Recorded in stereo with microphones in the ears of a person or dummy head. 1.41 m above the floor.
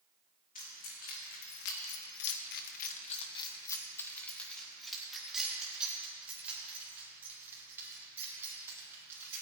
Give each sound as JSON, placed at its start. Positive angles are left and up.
{"t": 0.6, "sound": "keys jangling", "side_deg": 40, "distance_m": 2.0}